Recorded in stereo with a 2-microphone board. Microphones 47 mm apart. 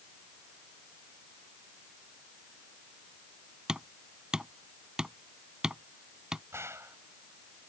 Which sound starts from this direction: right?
A gunshot, at 6.5 s.